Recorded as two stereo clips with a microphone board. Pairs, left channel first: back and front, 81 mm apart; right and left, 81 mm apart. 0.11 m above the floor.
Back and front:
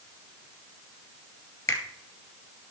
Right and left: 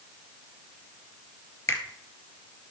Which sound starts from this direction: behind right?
A finger snap, at 1.7 s.